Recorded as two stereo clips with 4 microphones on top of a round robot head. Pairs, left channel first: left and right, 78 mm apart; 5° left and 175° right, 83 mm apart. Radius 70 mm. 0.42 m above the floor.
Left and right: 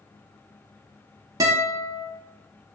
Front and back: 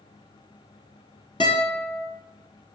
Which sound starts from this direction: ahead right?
A guitar, at 1.4 s.